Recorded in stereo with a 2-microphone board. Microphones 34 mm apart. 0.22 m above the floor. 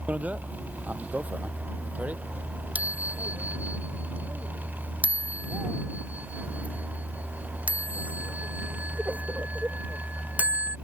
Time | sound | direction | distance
0.1 | a bicycle bell | 50° right (ahead or behind) | ?